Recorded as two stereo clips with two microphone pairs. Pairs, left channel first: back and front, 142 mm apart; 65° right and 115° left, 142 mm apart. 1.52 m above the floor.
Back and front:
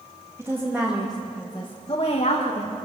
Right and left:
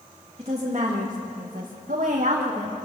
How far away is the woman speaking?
About 2.5 m.